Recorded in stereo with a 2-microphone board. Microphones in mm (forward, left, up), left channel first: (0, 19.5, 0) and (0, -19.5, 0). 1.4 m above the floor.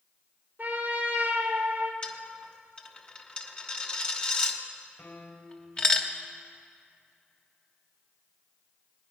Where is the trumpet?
45° right (ahead or behind), 1.8 m.